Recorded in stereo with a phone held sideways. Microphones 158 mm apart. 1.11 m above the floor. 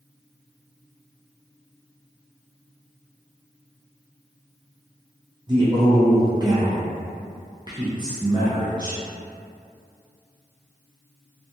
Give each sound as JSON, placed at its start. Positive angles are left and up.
{"t": 5.5, "sound": "a man speaking", "side_deg": -30, "distance_m": 0.6}